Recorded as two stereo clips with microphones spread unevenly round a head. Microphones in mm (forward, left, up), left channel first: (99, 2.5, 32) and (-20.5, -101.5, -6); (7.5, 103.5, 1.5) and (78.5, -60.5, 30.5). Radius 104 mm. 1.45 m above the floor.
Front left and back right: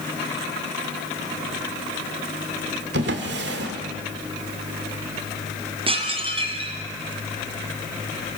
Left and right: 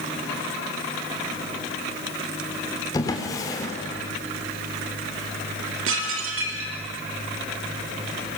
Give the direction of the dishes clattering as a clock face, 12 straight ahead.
3 o'clock.